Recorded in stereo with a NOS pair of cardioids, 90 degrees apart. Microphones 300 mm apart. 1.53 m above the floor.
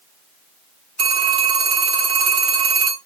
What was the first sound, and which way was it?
A phone ringing, 55° right.